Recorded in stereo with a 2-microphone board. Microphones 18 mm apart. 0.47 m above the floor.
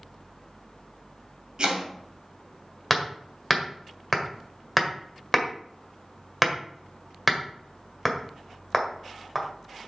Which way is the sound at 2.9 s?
10° right (ahead or behind).